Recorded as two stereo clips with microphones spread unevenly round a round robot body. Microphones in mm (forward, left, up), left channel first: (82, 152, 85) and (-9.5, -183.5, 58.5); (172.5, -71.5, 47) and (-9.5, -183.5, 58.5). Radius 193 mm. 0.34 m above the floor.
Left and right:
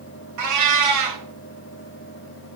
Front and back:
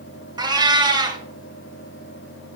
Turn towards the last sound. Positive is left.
turn(degrees=-75)